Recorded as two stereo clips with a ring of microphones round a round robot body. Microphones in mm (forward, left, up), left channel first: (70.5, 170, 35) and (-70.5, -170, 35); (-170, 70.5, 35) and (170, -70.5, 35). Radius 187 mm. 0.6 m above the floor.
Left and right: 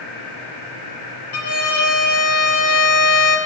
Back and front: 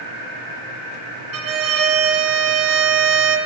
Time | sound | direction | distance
1.3 | a violin | 25° left | 2.5 m